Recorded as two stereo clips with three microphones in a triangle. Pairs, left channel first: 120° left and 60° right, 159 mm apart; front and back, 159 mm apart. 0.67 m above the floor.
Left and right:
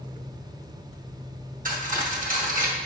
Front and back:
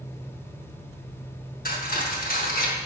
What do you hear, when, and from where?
1.6 s cutlery clinking: 25° right, 0.8 m